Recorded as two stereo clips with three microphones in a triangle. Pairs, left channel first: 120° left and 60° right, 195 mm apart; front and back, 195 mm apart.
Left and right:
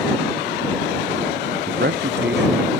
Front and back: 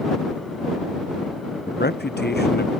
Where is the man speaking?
30° right.